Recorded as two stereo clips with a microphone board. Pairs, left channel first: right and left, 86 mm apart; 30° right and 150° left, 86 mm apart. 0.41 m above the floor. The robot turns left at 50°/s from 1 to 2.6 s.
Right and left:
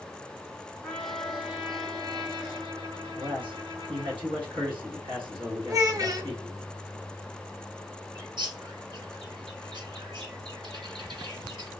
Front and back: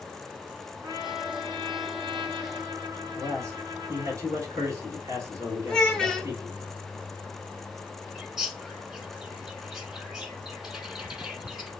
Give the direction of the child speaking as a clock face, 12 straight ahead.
10 o'clock.